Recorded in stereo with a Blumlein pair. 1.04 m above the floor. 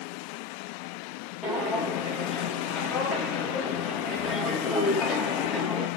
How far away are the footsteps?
About 3.5 m.